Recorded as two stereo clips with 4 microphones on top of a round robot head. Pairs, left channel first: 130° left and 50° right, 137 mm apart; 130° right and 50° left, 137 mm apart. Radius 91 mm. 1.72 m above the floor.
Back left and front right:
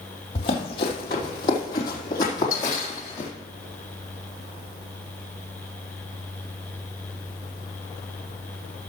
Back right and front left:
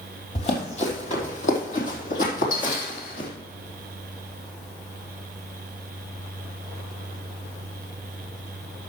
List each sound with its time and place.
0.3 s running footsteps: straight behind, 3 m; by 3.3 s 160° right, 4 m